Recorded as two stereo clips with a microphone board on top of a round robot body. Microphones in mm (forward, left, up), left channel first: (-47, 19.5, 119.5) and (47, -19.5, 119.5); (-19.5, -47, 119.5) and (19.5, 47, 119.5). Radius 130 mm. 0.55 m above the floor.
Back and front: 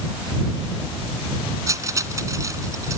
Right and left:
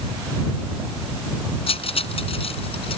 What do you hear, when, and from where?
1.7 s cutlery clinking: 80° right